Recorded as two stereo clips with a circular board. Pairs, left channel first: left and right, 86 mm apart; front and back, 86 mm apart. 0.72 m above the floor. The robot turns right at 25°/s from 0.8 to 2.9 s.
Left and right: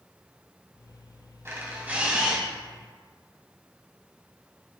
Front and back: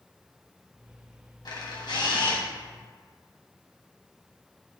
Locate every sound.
1.4 s a camera shutter: 30° right, 2.0 m; by 2.4 s 5° right, 2.0 m